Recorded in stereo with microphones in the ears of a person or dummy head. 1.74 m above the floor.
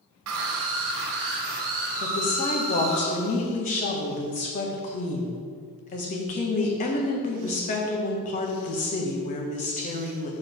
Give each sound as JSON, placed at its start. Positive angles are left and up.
{"t": 0.3, "sound": "a scream", "side_deg": -80, "distance_m": 1.5}
{"t": 2.0, "sound": "a woman speaking", "side_deg": 45, "distance_m": 1.5}